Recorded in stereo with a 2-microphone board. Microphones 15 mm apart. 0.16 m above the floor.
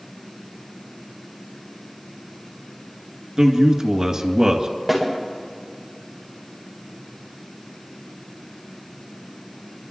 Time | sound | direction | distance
3.4 | a man speaking | 50° right (ahead or behind) | 2 m
4.9 | a snare drum | centre (ahead or behind) | 8 m